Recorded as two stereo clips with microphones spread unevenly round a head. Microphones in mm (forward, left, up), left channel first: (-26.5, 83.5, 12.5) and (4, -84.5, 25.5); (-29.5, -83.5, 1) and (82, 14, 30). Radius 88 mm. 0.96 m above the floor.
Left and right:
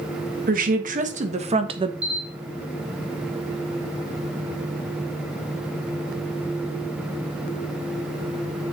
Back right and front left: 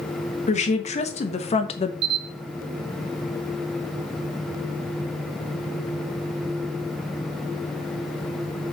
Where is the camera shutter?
Straight ahead, 1.5 m.